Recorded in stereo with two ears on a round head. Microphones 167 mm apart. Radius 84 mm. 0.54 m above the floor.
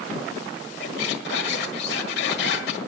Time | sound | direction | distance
0.8 | a squeak | 60° left (ahead or behind) | 1.6 m